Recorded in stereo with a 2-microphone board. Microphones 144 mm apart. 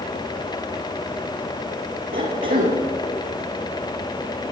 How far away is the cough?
About 6.5 m.